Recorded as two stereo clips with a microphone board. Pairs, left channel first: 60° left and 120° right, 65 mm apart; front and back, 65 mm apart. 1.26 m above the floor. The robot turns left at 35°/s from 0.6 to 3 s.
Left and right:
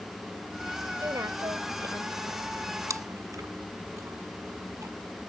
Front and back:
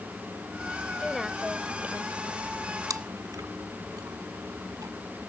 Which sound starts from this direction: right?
A woman speaking, at 1.0 s.